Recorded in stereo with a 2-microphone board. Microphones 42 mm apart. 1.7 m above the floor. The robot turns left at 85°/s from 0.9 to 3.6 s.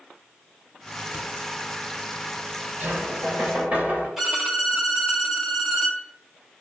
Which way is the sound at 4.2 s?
5° right (ahead or behind).